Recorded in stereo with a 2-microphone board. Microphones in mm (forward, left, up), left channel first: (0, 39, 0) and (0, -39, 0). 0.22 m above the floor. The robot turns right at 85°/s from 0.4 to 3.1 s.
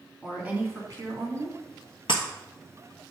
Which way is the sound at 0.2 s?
165° right.